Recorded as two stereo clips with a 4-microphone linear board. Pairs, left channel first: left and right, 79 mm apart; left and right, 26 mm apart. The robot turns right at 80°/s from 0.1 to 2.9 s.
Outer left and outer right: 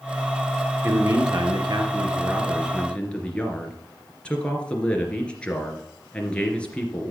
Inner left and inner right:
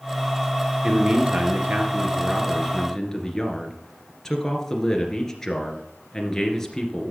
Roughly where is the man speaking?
Behind right.